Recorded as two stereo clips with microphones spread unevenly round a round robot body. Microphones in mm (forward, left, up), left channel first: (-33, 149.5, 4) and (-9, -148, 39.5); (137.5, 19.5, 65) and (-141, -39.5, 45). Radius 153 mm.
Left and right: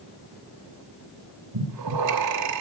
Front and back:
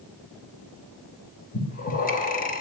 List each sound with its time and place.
1.5 s breathing: 50° right, 4 m